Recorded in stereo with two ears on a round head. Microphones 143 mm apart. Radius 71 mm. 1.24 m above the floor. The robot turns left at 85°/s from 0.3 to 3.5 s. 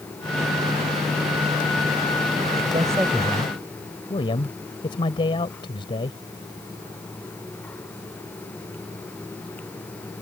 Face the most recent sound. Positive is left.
turn(degrees=150)